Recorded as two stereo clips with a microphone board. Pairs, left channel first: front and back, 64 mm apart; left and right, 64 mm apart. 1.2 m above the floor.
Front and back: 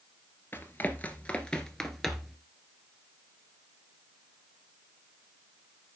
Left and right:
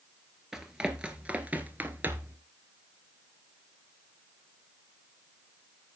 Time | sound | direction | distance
0.5 | running footsteps | 15° right | 1.3 m